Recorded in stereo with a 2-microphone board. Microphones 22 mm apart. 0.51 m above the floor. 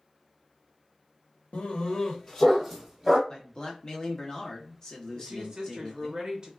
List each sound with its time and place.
1.5 s a dog barking: 60° left (ahead or behind), 0.8 m; by 3.2 s 15° right (ahead or behind), 1.4 m
3.3 s a man speaking: 30° left (ahead or behind), 1.0 m
5.2 s a woman speaking: 35° right (ahead or behind), 1.1 m